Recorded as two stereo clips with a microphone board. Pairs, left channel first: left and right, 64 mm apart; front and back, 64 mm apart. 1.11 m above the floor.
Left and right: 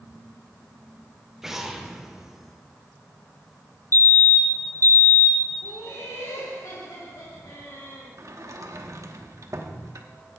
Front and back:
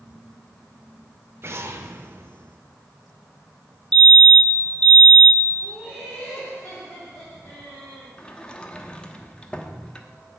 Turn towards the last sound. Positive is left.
turn(degrees=-70)